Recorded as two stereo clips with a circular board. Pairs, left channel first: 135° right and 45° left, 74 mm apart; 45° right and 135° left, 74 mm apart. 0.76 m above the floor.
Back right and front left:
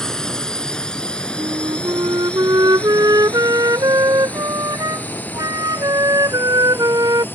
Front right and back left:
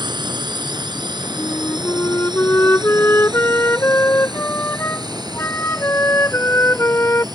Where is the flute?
15° left.